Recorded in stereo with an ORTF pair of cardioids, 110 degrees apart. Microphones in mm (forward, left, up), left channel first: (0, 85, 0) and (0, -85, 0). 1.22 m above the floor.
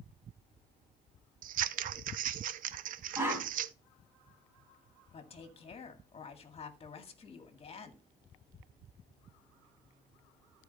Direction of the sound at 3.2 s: 15° right.